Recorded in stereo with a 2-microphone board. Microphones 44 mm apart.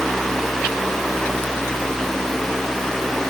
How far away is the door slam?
I don't hear a door slam.